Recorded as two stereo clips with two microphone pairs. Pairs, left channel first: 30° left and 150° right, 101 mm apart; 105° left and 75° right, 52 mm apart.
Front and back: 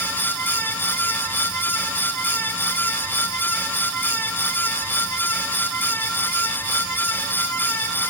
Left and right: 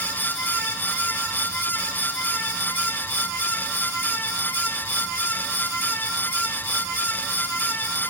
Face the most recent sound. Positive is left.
No sound to turn to.